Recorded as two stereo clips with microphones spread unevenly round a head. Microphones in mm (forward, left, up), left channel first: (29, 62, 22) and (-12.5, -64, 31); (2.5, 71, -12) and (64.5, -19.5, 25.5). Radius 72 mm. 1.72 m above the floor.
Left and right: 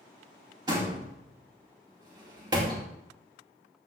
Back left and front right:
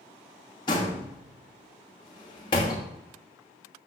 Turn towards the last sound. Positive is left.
turn(degrees=-170)